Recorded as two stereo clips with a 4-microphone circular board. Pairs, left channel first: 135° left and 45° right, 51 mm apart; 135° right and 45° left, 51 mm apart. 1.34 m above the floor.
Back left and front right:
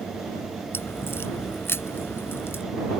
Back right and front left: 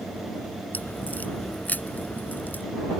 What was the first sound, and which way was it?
A crack, 170° left.